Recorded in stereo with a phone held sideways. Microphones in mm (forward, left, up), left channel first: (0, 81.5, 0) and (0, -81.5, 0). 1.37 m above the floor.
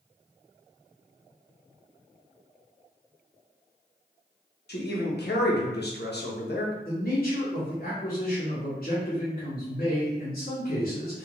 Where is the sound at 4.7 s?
75° left (ahead or behind), 0.7 m.